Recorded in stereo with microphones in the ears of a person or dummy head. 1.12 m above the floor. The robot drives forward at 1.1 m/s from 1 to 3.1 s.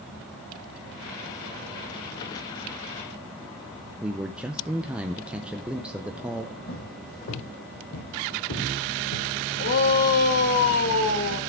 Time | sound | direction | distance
4.0 | a man speaking | 5° right (ahead or behind) | 0.6 m
6.7 | footsteps | 35° left (ahead or behind) | 3.5 m
9.6 | a shout | 45° left (ahead or behind) | 1.8 m